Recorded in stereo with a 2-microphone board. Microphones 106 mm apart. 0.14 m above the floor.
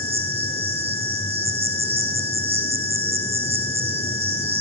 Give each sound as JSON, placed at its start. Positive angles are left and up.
{"t": 0.0, "sound": "an insect", "side_deg": -70, "distance_m": 6.5}